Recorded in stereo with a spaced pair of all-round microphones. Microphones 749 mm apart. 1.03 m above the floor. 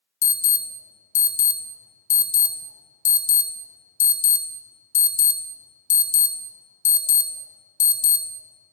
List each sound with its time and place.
0.2 s an alarm: 65° left (ahead or behind), 1.0 m